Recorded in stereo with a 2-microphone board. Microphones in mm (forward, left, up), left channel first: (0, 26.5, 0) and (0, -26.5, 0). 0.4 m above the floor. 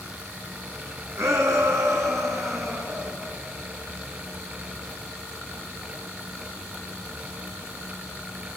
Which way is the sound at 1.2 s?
65° right (ahead or behind).